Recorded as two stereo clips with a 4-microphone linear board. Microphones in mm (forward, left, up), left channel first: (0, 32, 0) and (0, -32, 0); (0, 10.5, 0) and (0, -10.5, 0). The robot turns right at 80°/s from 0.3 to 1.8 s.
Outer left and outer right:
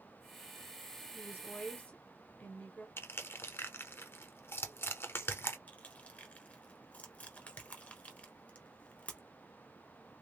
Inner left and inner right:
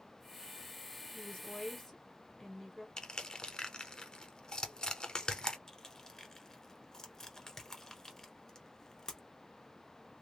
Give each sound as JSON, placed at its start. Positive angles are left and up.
{"t": 1.1, "sound": "a woman speaking", "azimuth_deg": 95, "distance_m": 1.3}
{"t": 3.0, "sound": "crushing", "side_deg": 40, "distance_m": 0.7}
{"t": 5.7, "sound": "crushing", "side_deg": 25, "distance_m": 1.0}